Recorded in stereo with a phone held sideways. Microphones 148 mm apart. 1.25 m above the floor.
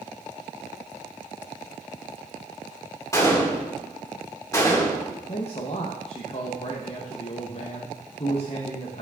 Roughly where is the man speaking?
Left.